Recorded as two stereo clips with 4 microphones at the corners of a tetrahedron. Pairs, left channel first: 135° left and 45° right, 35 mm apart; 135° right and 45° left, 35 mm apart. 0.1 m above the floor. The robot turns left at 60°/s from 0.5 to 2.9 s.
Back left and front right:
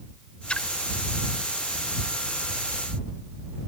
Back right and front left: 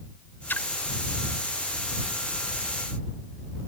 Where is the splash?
165° right; by 0.7 s 175° right.